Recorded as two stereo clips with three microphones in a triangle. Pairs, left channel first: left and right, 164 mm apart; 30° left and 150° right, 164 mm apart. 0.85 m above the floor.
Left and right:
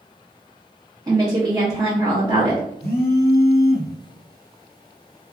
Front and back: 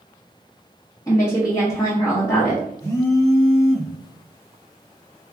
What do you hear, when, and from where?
1.1 s a woman speaking: 30° right, 0.7 m
2.8 s a phone buzzing: 100° left, 0.8 m